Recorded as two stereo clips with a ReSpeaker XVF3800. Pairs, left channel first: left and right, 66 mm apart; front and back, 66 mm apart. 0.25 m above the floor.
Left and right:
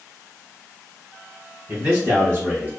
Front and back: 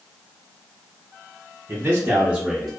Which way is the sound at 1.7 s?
140° right.